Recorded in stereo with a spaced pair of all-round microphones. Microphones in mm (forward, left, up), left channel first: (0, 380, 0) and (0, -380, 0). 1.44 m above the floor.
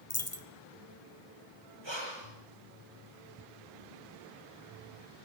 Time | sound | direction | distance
0.1 | a dropped coin | 20° left (ahead or behind) | 1.2 m
1.8 | breathing | 35° right (ahead or behind) | 5.5 m